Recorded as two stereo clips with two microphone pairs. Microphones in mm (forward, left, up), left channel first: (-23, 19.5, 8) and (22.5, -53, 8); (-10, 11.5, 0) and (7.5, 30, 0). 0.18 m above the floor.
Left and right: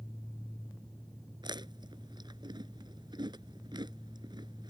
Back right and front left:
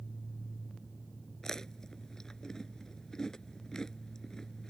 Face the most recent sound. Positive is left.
turn(degrees=-65)